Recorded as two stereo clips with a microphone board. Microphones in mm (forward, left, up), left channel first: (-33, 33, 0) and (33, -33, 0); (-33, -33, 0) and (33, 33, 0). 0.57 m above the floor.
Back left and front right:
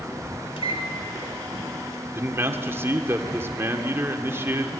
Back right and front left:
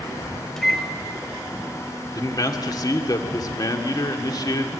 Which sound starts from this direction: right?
A man speaking, at 2.1 s.